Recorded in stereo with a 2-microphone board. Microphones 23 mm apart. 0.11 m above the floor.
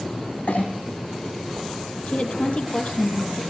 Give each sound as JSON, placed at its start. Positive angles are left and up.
{"t": 0.5, "sound": "a clink", "side_deg": 75, "distance_m": 4.0}
{"t": 2.1, "sound": "a woman speaking", "side_deg": 50, "distance_m": 3.5}